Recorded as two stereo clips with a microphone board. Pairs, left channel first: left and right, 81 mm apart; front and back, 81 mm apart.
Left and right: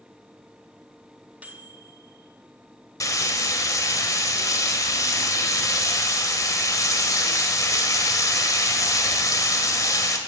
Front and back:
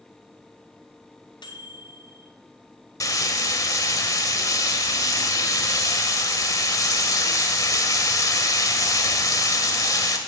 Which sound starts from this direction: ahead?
A microwave, at 1.4 s.